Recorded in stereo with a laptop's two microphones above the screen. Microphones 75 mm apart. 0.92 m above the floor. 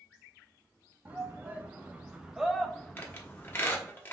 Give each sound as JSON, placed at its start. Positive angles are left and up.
{"t": 1.1, "sound": "a shout", "side_deg": -25, "distance_m": 0.9}
{"t": 3.0, "sound": "a squeak", "side_deg": 30, "distance_m": 1.1}